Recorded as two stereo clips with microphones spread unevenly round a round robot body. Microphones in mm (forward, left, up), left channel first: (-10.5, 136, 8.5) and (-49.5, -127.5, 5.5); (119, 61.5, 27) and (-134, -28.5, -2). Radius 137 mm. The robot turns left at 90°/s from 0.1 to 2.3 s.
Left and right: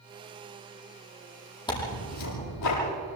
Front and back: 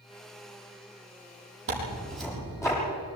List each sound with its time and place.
1.7 s tearing paper: 155° left, 10 m; by 2.8 s 100° left, 10 m